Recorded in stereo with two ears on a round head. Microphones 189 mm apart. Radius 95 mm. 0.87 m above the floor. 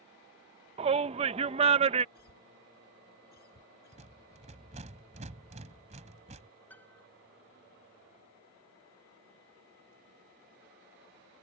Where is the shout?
30° right (ahead or behind).